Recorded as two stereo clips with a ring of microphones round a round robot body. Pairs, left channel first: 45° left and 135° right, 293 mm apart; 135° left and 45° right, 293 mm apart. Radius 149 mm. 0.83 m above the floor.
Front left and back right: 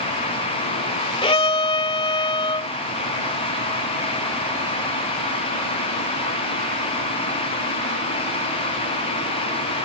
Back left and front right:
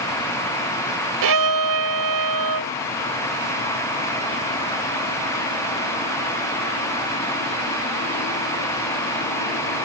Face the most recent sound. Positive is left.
turn(degrees=-25)